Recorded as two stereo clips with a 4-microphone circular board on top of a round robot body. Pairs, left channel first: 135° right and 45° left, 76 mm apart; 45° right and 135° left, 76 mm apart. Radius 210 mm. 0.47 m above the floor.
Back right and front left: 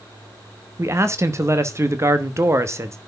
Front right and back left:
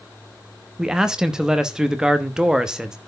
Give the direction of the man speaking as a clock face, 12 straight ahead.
10 o'clock.